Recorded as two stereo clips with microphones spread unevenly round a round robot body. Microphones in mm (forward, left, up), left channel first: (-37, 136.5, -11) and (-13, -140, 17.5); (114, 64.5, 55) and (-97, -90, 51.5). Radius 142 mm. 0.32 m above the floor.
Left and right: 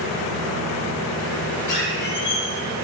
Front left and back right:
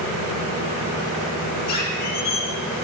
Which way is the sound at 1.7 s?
65° left.